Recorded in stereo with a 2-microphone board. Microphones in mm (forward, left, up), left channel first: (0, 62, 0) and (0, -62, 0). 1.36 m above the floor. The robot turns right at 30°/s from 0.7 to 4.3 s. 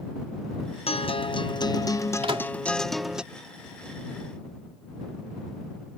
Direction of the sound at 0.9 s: 115° left.